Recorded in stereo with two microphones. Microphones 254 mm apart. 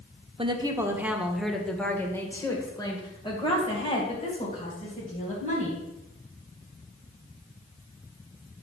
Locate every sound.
0.4 s a woman speaking: 20° right (ahead or behind), 1.3 m; by 5.8 s 30° left (ahead or behind), 4 m